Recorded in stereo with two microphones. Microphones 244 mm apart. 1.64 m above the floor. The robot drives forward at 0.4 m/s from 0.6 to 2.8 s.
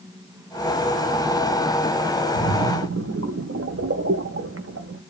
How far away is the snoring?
I don't hear snoring.